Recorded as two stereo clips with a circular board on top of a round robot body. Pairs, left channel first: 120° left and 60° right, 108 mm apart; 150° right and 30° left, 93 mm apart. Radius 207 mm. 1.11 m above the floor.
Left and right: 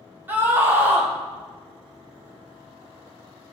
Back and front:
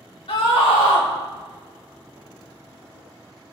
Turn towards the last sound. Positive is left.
turn(degrees=-130)